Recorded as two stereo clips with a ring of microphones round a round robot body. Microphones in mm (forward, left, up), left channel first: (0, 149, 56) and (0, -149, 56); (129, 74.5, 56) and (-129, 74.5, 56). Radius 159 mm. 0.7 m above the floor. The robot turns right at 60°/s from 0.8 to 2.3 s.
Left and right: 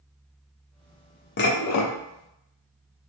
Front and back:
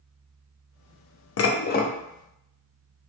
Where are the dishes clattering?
35° left, 0.5 m; by 1.9 s 65° left, 0.5 m.